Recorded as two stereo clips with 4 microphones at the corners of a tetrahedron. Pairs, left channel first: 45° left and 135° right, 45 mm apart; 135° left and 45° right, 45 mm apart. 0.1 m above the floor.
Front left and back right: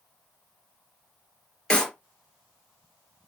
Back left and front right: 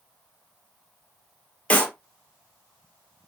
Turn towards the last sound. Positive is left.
turn(degrees=105)